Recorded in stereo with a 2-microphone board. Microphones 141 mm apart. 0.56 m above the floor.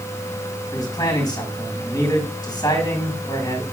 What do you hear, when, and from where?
0.7 s a man speaking: 30° left (ahead or behind), 4.5 m